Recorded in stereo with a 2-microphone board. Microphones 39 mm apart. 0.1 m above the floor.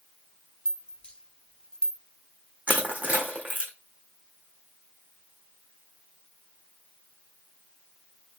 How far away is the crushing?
About 1.8 m.